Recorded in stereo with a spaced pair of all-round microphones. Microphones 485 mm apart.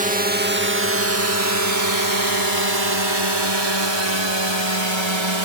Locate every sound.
0.0 s a drone: 15° right (ahead or behind); by 5.5 s 70° right (ahead or behind)